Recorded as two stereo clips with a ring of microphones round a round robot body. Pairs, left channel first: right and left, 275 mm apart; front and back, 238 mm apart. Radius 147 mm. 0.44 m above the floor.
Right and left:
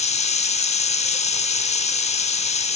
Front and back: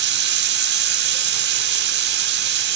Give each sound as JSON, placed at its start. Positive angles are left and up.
{"t": 0.0, "sound": "running water", "azimuth_deg": -150, "distance_m": 0.7}